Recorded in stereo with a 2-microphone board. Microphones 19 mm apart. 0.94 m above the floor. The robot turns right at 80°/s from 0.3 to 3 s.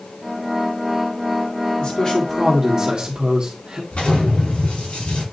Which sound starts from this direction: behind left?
A man speaking, at 1.8 s.